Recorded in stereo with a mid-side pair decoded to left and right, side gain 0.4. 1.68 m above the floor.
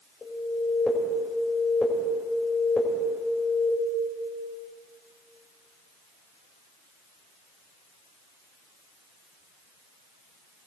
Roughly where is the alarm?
Ahead left.